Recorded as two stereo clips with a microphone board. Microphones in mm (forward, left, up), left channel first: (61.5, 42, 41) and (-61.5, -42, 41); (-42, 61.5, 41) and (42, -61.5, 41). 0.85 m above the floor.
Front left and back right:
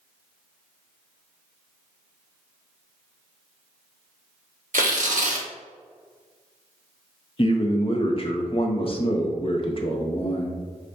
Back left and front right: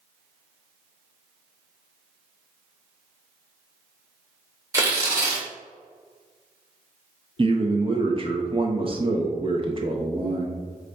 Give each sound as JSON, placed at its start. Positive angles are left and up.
{"t": 4.7, "sound": "tearing paper", "azimuth_deg": -120, "distance_m": 0.8}
{"t": 7.4, "sound": "a man speaking", "azimuth_deg": -10, "distance_m": 0.6}